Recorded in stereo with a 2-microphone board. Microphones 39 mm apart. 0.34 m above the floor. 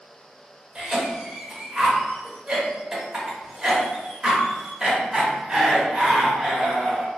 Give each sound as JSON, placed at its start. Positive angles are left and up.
{"t": 0.8, "sound": "a cough", "side_deg": -20, "distance_m": 0.8}